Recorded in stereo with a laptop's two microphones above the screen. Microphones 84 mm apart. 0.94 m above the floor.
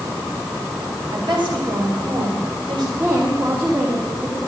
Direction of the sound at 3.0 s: 35° right (ahead or behind).